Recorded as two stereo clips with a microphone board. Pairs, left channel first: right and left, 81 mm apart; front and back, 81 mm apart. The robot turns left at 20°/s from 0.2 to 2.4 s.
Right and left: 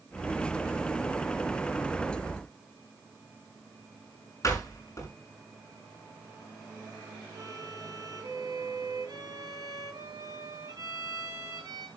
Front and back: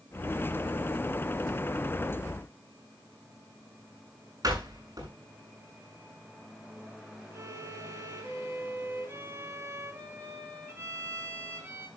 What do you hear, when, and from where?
4.4 s a door slam: 140° right, 6 m
7.3 s a violin: 125° left, 6 m